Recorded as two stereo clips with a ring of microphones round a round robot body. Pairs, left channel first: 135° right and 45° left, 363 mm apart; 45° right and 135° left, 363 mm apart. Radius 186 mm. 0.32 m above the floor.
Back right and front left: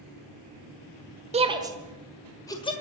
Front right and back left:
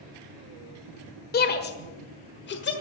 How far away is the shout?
About 1.5 m.